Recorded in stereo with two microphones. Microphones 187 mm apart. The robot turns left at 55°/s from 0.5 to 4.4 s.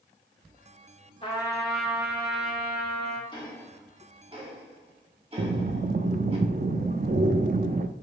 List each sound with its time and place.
1.2 s a trumpet: 30° left, 1.7 m; by 3.2 s 80° right, 1.7 m
3.3 s ticking: 25° left (ahead or behind), 1.7 m; by 6.4 s 30° right (ahead or behind), 1.7 m
5.4 s breathing: 50° right (ahead or behind), 0.5 m